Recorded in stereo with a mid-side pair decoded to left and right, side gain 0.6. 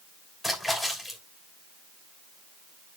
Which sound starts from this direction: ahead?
A splash, at 0.4 s.